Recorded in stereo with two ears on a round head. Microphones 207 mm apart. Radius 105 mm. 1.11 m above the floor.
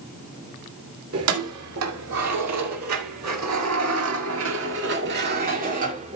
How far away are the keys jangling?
About 3 m.